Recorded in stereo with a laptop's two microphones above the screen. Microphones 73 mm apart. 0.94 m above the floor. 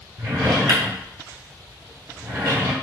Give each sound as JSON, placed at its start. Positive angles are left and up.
{"t": 0.2, "sound": "a drawer", "side_deg": -50, "distance_m": 1.0}